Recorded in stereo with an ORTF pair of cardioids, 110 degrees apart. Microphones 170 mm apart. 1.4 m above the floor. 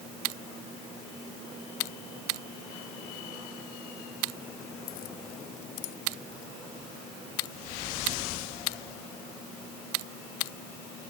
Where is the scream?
No scream in this recording.